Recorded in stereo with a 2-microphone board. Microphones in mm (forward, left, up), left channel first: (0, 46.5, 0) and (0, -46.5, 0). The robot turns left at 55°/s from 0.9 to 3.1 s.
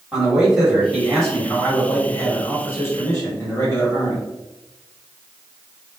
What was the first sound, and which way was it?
A man speaking, 5° right (ahead or behind).